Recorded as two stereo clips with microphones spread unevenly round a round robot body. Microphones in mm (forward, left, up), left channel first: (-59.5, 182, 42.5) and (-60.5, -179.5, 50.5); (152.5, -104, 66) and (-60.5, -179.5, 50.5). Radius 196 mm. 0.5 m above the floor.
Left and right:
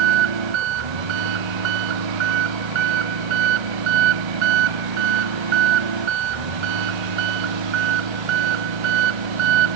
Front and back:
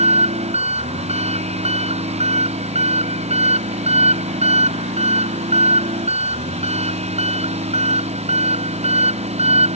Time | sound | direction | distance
0.0 | an engine running | 95° right | ?